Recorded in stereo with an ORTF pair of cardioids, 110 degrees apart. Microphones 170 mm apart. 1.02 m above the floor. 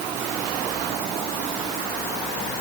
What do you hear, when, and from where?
Only background noise.